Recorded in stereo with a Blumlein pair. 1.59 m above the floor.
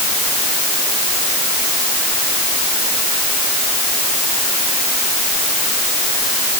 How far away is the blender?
No blender in this recording.